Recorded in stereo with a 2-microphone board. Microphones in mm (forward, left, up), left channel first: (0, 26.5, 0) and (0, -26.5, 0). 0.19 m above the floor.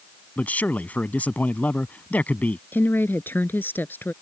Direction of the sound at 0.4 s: 30° left (ahead or behind).